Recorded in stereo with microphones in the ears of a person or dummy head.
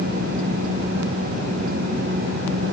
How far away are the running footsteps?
I don't hear running footsteps.